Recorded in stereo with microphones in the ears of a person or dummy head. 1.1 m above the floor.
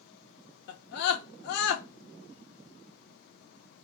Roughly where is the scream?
Left.